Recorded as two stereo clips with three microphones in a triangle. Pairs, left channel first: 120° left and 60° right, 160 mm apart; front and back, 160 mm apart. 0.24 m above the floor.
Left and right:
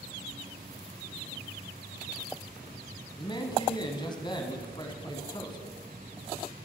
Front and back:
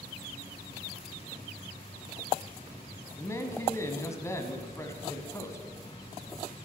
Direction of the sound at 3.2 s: 65° left.